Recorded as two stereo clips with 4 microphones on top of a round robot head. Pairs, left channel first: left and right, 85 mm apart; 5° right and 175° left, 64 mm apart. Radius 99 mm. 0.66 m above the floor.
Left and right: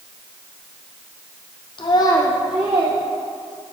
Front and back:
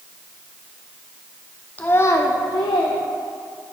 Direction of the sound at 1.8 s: 60° left.